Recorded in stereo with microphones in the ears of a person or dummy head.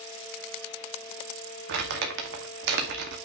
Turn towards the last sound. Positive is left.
turn(degrees=-60)  # may be behind; listen again after turning